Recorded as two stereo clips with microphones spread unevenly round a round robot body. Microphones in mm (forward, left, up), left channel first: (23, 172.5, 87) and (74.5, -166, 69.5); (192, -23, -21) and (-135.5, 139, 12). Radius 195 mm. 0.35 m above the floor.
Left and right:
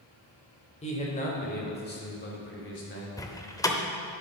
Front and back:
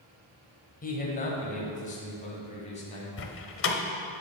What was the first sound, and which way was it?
A man speaking, 30° left.